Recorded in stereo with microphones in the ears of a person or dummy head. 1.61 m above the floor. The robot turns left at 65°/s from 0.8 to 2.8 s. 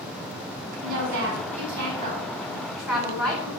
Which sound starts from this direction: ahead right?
A woman speaking, at 0.8 s.